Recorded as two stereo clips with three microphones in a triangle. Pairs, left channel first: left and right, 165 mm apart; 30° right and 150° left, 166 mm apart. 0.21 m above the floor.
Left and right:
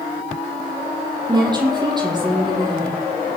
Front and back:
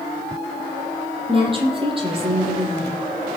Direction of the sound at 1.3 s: 155° right.